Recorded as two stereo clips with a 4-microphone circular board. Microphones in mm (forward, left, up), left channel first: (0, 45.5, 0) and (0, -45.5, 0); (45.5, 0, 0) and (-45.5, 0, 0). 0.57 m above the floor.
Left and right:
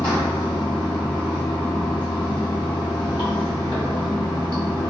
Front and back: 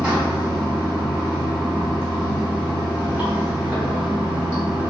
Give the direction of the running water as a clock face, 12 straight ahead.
9 o'clock.